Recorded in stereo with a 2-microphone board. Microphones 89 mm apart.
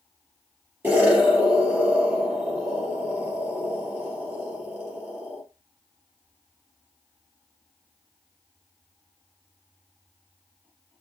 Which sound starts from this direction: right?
An explosion, at 0.8 s.